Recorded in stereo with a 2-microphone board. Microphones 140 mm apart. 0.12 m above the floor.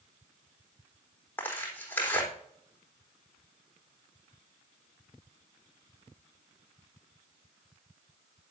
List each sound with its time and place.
1.4 s tearing paper: 15° left (ahead or behind), 3.5 m